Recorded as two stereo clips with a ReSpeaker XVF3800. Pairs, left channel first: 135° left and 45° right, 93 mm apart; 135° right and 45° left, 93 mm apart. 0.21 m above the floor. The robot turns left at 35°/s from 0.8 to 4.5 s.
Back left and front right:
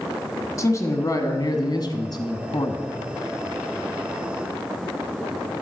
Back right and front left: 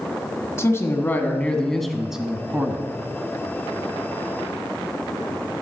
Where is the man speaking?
175° left, 1.4 m; by 2.8 s 105° left, 1.4 m.